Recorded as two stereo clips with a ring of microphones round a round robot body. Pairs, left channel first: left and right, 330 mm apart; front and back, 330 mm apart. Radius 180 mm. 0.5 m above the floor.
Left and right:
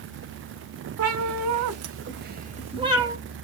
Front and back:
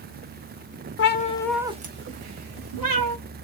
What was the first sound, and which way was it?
A cat meowing, 50° right.